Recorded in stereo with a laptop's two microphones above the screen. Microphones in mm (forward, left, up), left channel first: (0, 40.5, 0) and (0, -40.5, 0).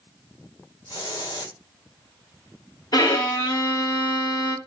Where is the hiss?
60° left (ahead or behind), 1.9 m.